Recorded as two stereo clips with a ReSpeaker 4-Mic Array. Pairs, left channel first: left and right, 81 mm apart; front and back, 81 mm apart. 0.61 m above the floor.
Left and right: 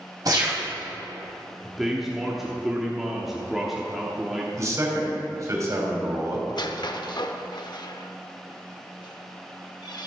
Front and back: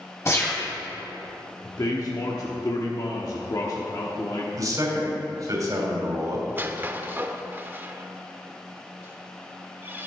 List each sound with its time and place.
0.2 s a gunshot: 50° right, 3.5 m
1.6 s a man speaking: 5° right, 1.1 m
4.6 s a man speaking: 140° right, 3 m
6.5 s a squeak: 115° left, 0.6 m